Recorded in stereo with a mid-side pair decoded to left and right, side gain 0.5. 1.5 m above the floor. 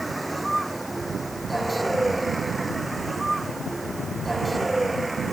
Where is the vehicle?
10° right; by 5.3 s 20° right.